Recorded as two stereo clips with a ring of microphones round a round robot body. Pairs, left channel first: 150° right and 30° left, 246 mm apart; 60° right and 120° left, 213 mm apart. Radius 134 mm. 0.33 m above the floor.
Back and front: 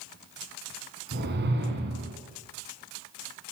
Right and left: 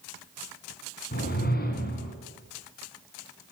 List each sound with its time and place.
1.1 s a whoosh: 15° right, 3.5 m